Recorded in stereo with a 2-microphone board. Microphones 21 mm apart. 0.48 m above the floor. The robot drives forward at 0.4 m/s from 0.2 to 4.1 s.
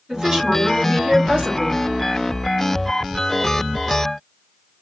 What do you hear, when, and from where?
0.1 s a woman speaking: 40° right (ahead or behind), 1.8 m; by 1.8 s 45° right (ahead or behind), 1.7 m